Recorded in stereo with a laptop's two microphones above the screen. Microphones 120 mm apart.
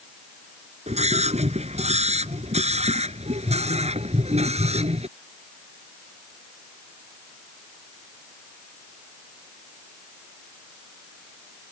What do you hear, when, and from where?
0.9 s a scream: 65° right (ahead or behind); by 5.1 s 60° right (ahead or behind)